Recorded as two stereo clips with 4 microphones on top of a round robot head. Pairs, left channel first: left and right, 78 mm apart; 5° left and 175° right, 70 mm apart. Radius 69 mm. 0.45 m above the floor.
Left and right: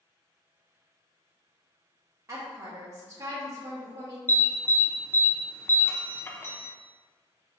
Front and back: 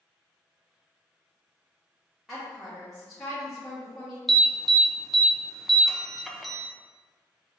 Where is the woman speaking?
75° right, 0.9 m.